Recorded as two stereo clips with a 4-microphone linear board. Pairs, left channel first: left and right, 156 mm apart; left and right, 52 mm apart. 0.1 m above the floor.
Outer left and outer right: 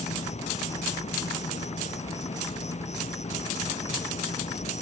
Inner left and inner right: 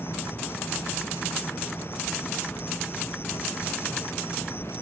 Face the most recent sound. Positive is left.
turn(degrees=50)  # may be behind; listen again after turning